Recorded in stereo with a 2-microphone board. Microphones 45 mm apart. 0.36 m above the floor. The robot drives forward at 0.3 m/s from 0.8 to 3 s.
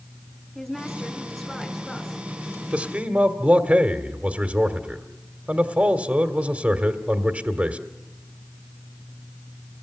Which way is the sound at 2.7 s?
35° right (ahead or behind).